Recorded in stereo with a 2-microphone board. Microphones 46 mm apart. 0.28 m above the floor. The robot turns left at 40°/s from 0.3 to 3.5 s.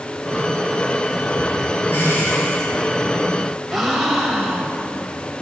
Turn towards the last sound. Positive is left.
turn(degrees=0)  # may be behind; listen again after turning